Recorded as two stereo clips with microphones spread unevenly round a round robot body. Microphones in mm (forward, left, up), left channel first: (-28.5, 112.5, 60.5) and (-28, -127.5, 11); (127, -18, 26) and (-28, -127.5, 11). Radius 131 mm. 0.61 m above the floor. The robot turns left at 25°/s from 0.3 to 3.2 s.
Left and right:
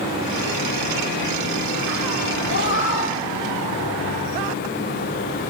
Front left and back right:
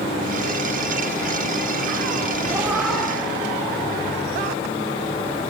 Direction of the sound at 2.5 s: 135° left.